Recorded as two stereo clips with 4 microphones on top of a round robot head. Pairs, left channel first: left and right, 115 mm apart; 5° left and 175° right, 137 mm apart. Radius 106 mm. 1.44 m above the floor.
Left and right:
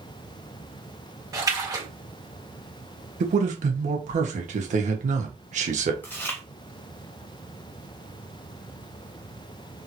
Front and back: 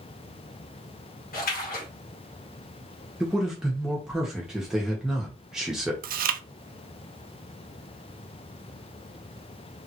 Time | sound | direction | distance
1.3 | a splash | 30° right | 1.9 m
3.2 | a man speaking | 90° right | 1.4 m
6.0 | chewing | 170° left | 0.5 m